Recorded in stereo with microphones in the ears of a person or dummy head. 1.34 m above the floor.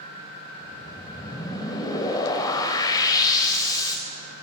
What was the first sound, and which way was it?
A whoosh, 25° left (ahead or behind).